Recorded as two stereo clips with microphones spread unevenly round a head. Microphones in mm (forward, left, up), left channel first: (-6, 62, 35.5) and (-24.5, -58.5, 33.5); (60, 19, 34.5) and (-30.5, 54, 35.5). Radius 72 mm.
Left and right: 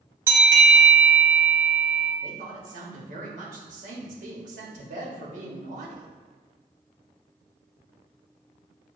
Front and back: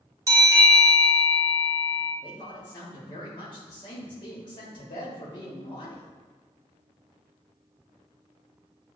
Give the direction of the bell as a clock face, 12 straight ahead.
5 o'clock.